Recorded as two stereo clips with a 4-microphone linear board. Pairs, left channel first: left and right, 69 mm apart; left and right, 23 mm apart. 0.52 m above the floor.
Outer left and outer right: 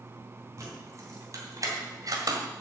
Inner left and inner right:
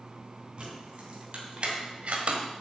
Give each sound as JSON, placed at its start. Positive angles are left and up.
{"t": 0.6, "sound": "keys jangling", "side_deg": -45, "distance_m": 3.5}